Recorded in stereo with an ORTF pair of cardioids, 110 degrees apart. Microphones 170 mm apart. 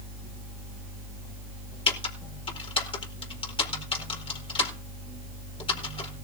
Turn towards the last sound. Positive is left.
turn(degrees=30)